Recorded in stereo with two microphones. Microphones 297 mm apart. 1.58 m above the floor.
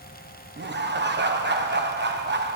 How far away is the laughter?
About 1.1 m.